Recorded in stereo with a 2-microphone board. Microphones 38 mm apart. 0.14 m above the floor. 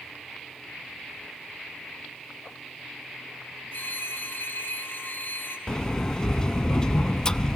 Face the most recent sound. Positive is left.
turn(degrees=20)  # may be behind; listen again after turning